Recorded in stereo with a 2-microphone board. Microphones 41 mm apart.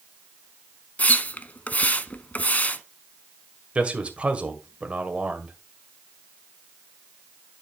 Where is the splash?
35° left (ahead or behind), 0.7 m.